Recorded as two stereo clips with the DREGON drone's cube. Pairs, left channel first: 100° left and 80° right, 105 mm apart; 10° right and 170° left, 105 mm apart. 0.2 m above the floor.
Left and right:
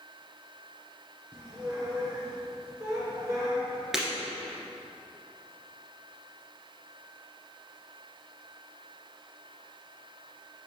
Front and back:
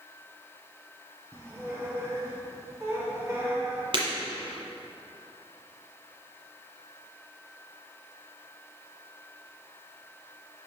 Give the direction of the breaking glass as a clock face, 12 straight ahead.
5 o'clock.